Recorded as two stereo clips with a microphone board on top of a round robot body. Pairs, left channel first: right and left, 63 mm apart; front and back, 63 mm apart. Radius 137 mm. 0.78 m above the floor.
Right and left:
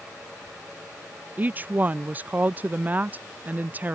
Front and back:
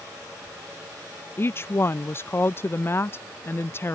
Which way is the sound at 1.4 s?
35° left.